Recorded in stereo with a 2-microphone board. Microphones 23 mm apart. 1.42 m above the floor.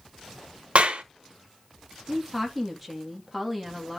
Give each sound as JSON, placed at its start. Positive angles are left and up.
{"t": 0.8, "sound": "a clap", "side_deg": -65, "distance_m": 1.4}
{"t": 2.1, "sound": "a woman speaking", "side_deg": 0, "distance_m": 2.5}